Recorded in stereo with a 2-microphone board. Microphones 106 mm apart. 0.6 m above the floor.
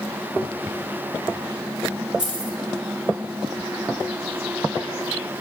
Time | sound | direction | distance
2.2 | keys jangling | 10° right (ahead or behind) | 1.8 m